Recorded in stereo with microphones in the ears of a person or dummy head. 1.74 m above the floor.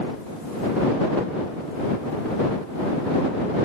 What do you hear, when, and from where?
Only background noise.